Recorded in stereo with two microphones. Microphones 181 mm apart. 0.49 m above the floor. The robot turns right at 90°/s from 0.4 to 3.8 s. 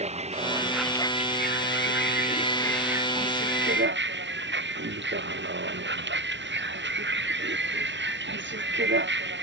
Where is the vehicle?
35° right (ahead or behind); by 9.4 s 90° right.